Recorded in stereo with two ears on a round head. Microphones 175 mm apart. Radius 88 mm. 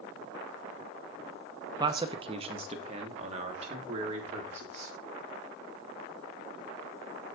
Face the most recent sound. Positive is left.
turn(degrees=-35)  # may be behind; listen again after turning